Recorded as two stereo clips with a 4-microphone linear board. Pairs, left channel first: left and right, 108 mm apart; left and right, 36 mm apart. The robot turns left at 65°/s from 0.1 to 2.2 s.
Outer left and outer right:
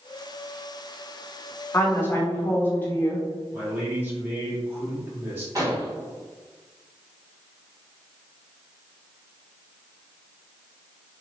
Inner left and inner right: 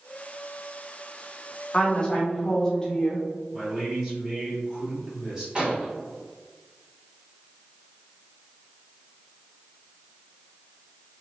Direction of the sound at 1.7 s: 25° left (ahead or behind).